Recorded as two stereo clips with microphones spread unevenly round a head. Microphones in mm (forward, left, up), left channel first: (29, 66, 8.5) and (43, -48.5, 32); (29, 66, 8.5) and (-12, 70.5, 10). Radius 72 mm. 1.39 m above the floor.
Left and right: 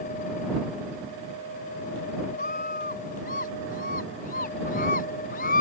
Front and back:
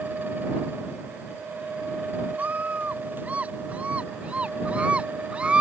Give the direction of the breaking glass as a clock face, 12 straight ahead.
I don't hear breaking glass.